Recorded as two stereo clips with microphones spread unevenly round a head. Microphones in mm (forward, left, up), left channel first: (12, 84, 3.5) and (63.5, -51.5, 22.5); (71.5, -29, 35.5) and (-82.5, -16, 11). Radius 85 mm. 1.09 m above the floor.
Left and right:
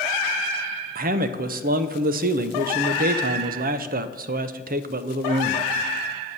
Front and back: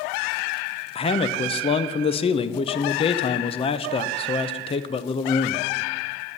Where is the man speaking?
60° right, 0.6 m.